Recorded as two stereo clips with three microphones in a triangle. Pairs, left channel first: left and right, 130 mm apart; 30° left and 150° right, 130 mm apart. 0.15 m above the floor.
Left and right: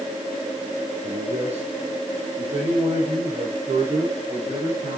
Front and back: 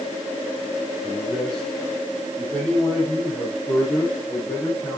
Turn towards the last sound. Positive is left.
turn(degrees=-40)